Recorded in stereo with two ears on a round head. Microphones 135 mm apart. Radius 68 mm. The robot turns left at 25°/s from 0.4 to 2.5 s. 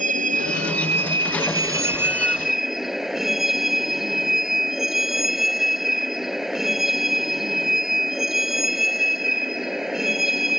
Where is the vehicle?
125° right; by 10.6 s straight behind.